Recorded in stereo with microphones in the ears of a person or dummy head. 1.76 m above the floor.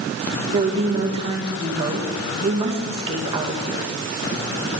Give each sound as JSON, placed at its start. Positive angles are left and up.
{"t": 0.5, "sound": "a woman speaking", "side_deg": -30, "distance_m": 2.5}